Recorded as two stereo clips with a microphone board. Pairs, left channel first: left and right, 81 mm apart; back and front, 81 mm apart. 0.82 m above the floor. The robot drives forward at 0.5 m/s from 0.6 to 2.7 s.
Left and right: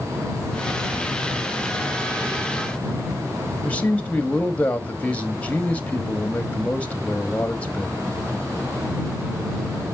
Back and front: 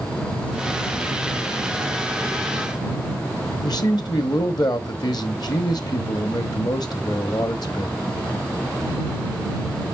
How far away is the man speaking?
About 1.1 m.